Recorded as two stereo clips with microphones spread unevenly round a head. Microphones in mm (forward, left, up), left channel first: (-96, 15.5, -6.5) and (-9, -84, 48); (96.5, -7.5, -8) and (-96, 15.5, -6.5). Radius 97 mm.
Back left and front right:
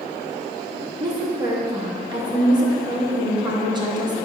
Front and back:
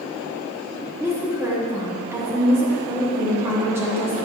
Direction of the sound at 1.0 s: 110° right.